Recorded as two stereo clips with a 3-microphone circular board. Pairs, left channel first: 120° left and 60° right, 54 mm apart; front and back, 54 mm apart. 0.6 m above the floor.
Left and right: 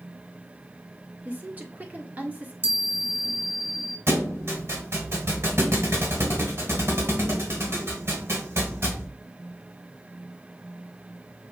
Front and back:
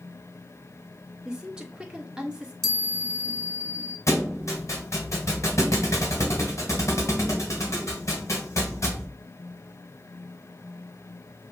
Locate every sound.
1.2 s a woman speaking: 105° right, 1.2 m
2.6 s a chime: 80° left, 1.0 m
4.1 s a thud: 25° right, 1.5 m